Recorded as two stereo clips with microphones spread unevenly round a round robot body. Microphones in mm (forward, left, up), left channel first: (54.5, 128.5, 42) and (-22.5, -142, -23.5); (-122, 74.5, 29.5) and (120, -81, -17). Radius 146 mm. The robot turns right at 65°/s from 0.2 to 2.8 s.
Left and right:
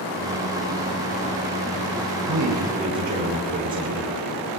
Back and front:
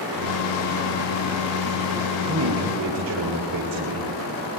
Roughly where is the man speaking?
Right.